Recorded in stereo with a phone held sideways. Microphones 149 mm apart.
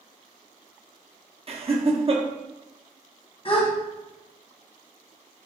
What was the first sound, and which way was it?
Laughter, 40° right (ahead or behind).